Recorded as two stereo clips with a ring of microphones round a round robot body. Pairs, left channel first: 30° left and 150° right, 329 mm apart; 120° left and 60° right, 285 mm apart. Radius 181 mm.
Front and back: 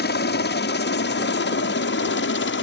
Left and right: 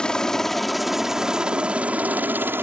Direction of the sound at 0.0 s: 35° left.